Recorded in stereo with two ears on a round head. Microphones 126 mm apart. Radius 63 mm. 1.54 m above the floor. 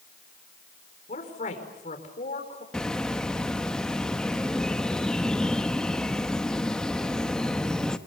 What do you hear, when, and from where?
1.1 s a woman speaking: 55° left (ahead or behind), 5 m
2.7 s a bird: 5° left (ahead or behind), 1.0 m